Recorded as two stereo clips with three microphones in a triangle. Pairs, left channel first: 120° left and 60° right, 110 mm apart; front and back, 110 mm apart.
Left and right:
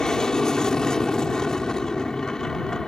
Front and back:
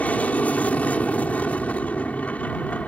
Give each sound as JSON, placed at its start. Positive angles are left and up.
{"t": 0.0, "sound": "an aircraft", "azimuth_deg": 45}